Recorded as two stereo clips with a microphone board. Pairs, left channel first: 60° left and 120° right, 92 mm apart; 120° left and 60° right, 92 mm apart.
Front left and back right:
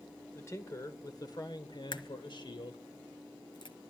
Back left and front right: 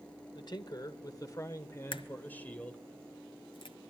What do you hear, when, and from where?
0.3 s a man speaking: 115° left, 1.6 m; by 2.8 s 40° left, 2 m
1.9 s a crack: 95° left, 1.2 m